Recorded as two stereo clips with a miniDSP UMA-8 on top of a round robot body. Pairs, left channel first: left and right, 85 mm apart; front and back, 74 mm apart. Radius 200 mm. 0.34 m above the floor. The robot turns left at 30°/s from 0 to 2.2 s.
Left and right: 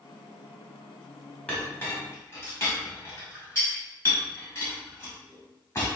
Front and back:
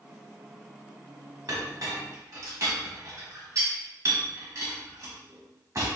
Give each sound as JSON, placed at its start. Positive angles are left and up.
{"t": 1.5, "sound": "a clink", "azimuth_deg": 165, "distance_m": 1.2}